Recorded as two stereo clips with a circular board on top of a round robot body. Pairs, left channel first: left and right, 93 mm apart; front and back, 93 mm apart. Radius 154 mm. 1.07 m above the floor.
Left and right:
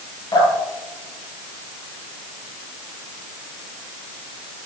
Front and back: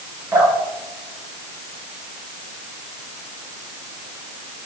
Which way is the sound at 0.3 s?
125° left.